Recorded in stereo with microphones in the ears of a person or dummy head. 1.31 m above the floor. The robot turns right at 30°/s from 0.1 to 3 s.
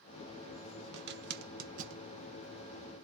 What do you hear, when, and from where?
0.9 s a zipper: 60° right (ahead or behind), 0.7 m; by 2.0 s 35° right (ahead or behind), 0.7 m